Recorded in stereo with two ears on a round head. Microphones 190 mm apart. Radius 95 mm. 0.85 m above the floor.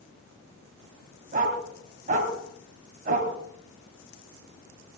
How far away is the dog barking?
About 2.5 m.